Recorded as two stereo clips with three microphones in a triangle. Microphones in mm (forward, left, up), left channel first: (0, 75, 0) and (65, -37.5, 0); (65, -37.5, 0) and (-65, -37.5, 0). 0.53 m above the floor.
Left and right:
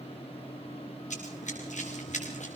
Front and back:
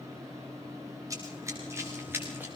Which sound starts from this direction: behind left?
Running footsteps, at 1.1 s.